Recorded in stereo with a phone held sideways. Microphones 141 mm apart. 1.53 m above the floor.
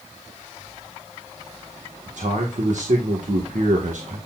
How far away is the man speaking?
About 1.6 m.